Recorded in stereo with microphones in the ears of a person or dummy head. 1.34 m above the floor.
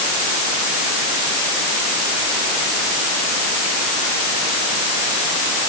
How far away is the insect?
I don't hear an insect.